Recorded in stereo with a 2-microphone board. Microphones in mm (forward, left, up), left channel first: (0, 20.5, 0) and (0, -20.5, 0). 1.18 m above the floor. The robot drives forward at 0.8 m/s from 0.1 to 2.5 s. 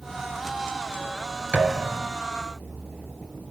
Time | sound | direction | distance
1.5 | a thud | 20° right (ahead or behind) | 3.5 m